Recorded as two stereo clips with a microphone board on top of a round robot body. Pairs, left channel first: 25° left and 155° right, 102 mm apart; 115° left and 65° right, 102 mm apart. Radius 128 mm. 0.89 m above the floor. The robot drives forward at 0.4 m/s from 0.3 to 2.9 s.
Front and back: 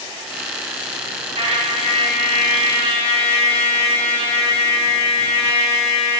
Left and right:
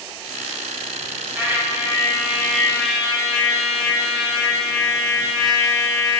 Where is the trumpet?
140° right, 1.3 m; by 6.2 s 155° right, 1.8 m.